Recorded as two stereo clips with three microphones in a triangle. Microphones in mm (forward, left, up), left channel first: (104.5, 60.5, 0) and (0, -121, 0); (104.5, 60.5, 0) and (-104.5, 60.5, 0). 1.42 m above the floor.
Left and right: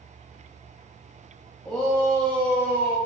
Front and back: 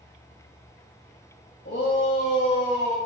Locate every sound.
1.6 s a shout: 25° right, 1.4 m; by 3.0 s 80° right, 1.2 m